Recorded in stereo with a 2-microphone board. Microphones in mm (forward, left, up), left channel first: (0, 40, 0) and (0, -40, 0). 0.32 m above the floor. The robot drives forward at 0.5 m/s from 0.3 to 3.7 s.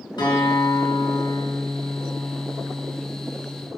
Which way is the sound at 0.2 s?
70° left (ahead or behind).